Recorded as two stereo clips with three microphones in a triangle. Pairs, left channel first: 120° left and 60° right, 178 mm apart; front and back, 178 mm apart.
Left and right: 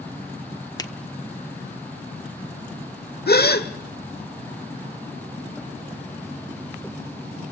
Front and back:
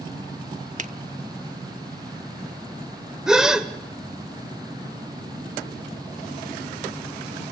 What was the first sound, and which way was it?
A finger snap, straight behind.